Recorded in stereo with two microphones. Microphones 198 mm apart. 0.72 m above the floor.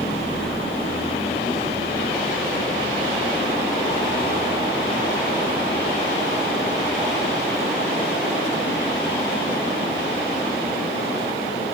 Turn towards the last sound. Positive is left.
turn(degrees=25)  # may be behind; listen again after turning